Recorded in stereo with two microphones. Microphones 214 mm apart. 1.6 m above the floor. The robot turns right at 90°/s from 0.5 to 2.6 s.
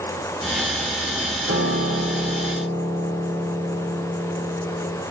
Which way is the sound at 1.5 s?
70° right.